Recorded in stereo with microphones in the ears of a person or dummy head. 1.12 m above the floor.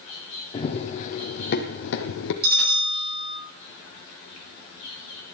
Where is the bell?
50° right (ahead or behind), 10 m.